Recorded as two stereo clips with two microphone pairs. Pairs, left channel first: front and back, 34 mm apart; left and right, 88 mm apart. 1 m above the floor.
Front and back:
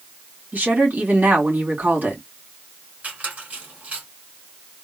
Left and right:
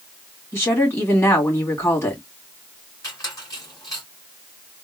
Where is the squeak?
140° left, 2 m.